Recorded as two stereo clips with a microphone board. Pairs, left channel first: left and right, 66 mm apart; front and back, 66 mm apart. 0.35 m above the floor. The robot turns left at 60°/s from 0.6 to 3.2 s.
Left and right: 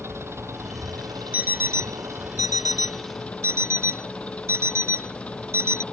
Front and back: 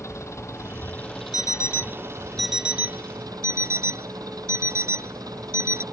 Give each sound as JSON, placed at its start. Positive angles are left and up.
{"t": 0.0, "sound": "an engine running", "azimuth_deg": -45}
{"t": 1.3, "sound": "an alarm clock", "azimuth_deg": -25}